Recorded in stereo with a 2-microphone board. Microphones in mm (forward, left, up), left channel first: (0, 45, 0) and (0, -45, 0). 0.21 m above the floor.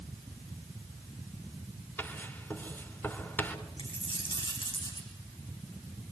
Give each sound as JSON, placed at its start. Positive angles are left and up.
{"t": 2.0, "sound": "writing", "side_deg": 25, "distance_m": 3.0}
{"t": 3.8, "sound": "a dropped coin", "side_deg": 75, "distance_m": 5.5}